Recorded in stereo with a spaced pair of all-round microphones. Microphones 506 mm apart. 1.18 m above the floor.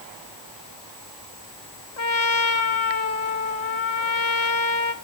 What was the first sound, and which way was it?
A trumpet, 70° left (ahead or behind).